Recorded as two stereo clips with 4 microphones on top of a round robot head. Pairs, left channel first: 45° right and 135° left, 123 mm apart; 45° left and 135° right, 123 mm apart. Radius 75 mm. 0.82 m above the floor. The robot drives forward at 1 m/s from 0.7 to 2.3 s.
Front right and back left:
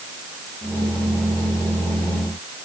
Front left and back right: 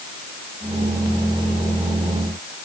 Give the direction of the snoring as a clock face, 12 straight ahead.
No snoring in this recording.